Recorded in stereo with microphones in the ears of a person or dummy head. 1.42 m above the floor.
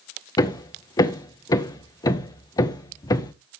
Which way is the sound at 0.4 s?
25° left (ahead or behind).